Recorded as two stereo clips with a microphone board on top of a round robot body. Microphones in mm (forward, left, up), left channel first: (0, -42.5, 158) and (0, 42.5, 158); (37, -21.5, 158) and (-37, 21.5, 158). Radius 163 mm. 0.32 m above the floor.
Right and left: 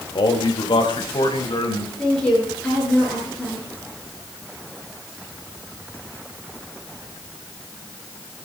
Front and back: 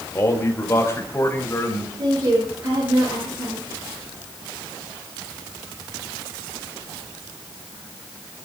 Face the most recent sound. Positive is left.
turn(degrees=-170)